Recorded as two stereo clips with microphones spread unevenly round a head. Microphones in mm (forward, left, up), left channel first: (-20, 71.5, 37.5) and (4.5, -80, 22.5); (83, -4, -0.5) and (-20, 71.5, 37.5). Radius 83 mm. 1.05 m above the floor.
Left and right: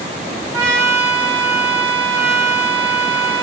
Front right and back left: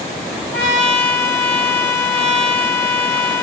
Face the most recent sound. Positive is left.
turn(degrees=0)